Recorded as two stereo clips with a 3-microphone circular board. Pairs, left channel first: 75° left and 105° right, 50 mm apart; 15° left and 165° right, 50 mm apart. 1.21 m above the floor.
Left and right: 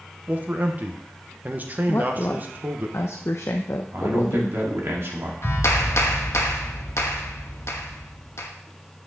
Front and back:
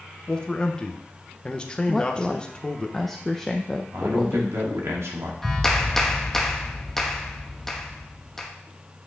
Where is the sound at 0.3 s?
50° right, 1.0 m.